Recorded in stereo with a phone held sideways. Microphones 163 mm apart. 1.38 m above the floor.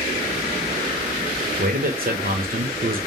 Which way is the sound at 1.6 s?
65° right (ahead or behind).